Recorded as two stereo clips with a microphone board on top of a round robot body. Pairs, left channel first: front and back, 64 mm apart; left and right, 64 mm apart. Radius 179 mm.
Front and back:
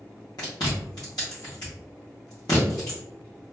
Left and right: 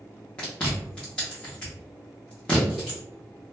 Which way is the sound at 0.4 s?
15° left.